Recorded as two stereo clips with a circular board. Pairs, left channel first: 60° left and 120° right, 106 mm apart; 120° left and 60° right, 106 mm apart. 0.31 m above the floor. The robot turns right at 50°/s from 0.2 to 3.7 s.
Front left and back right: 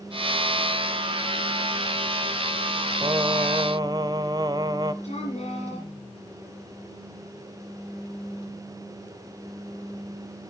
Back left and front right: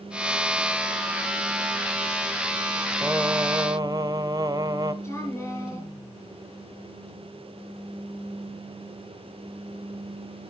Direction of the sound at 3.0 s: 125° right.